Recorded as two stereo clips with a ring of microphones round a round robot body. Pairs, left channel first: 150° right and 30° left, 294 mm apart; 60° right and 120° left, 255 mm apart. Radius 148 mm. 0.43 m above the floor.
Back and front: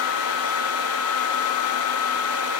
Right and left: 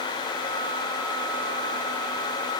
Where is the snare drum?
No snare drum in this recording.